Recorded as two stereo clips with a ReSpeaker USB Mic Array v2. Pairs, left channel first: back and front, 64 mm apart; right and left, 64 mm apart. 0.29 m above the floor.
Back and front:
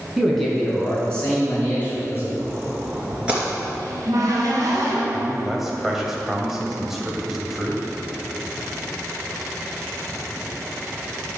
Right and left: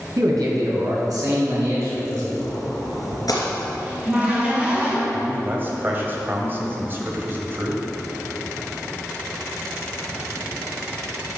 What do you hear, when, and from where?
0.2 s a man speaking: 90° left, 3.5 m; by 2.3 s 120° left, 5 m
2.4 s a splash: 70° right, 2.5 m
3.8 s a cupboard door: 20° left, 3 m
5.1 s a man speaking: 80° left, 1.7 m